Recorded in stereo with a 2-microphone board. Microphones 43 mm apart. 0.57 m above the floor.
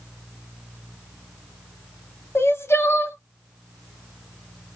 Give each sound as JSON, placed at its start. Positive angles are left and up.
{"t": 2.4, "sound": "crying", "side_deg": 70, "distance_m": 0.8}